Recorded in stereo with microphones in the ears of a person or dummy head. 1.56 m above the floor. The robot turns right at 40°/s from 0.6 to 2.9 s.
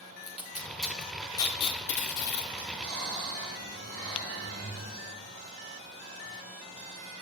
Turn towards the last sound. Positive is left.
turn(degrees=-70)  # may be behind; listen again after turning